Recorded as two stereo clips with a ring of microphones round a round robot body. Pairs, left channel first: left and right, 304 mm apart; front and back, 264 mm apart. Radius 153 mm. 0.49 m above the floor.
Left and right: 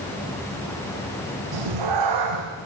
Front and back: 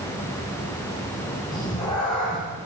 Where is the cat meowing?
80° right, 8 m.